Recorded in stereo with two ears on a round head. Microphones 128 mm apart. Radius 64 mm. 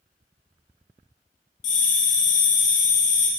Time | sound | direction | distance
1.6 | a bell | 60° left (ahead or behind) | 1.8 m